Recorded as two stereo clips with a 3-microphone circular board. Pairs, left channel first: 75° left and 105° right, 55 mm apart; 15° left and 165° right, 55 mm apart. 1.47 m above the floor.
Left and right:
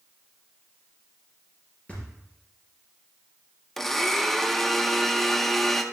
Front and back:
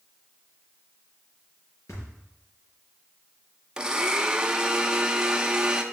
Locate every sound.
1.9 s a thud: 10° left, 4.5 m
3.8 s a blender: 155° left, 0.6 m